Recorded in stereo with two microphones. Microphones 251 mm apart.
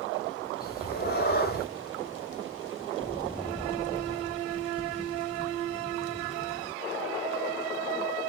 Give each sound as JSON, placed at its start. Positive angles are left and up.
{"t": 0.6, "sound": "a cat meowing", "side_deg": 40, "distance_m": 0.7}